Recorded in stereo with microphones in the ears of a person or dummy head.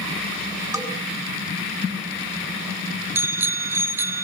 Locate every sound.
0.7 s a bell: 15° right (ahead or behind), 5.5 m
3.1 s a bicycle bell: 10° right (ahead or behind), 2 m